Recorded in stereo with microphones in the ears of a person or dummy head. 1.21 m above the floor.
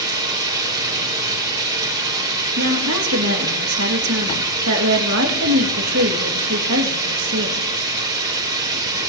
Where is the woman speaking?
80° right, 1.9 m.